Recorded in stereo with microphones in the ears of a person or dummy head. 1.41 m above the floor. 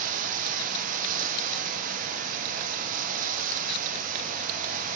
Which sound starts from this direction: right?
Running water, at 0.0 s.